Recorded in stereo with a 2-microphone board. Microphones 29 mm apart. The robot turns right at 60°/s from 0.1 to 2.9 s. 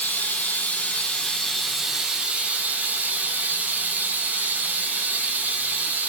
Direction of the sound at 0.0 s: 85° left.